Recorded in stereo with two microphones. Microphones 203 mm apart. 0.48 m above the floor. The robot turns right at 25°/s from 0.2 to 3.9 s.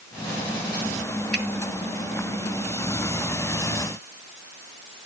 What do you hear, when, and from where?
1.3 s a finger snap: 55° left (ahead or behind), 2.5 m